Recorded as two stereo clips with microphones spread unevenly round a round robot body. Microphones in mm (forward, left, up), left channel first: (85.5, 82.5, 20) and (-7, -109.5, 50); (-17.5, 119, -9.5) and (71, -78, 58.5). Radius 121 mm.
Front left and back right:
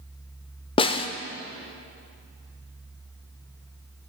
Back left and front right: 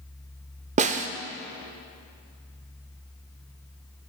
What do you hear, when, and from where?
0.8 s a snare drum: 5° right, 0.5 m